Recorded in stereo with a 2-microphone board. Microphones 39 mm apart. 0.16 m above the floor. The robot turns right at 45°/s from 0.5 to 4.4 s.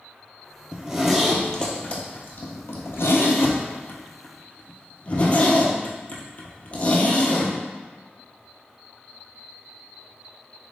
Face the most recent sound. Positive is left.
turn(degrees=40)  # may be behind; listen again after turning